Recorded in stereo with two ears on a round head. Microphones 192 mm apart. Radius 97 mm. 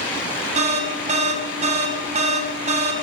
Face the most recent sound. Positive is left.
turn(degrees=-30)  # may be behind; listen again after turning